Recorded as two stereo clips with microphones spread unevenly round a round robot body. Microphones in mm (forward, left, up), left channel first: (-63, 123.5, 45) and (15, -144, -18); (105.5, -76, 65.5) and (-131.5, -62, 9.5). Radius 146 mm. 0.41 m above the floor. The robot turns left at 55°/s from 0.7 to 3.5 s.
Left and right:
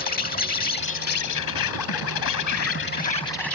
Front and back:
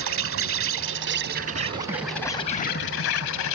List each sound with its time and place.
0.0 s an insect: 170° left; by 3.5 s 15° left